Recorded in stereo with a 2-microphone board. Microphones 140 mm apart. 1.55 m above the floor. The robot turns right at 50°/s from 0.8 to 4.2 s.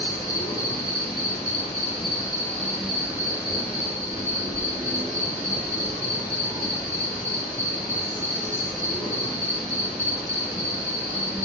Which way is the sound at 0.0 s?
80° left.